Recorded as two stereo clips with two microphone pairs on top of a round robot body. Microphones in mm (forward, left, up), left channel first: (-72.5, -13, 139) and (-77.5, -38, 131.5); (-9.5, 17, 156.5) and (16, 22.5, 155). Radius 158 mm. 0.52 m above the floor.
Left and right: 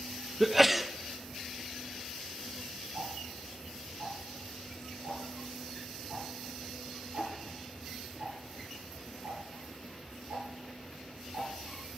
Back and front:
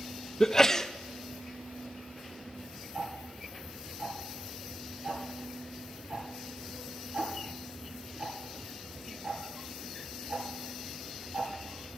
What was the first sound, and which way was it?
A sneeze, 110° right.